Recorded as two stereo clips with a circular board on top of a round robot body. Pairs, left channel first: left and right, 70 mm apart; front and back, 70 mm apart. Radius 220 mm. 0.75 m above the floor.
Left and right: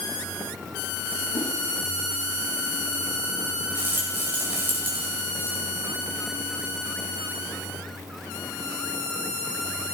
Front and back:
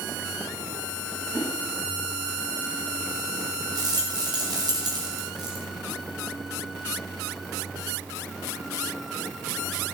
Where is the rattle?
155° right, 1.6 m.